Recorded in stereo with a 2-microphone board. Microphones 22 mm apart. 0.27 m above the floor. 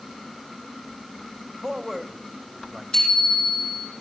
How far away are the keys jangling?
I don't hear keys jangling.